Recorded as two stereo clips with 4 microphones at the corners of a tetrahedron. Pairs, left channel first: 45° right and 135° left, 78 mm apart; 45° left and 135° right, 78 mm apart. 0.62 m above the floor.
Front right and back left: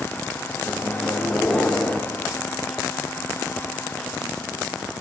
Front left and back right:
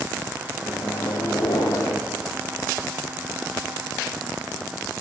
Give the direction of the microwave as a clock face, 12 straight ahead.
11 o'clock.